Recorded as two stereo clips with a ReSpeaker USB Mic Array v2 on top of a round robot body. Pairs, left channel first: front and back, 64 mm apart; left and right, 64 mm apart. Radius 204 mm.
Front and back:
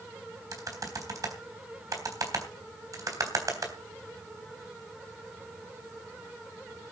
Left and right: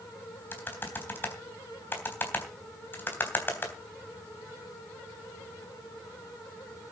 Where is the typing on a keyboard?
145° left, 3.5 m.